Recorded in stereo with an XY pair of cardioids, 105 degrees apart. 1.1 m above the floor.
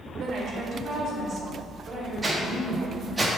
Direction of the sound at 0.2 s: 60° right.